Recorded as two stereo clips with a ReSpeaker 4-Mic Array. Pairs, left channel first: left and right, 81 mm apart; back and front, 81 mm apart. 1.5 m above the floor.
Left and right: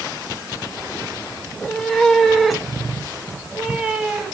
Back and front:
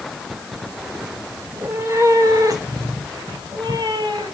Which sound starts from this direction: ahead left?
A cat meowing, at 1.5 s.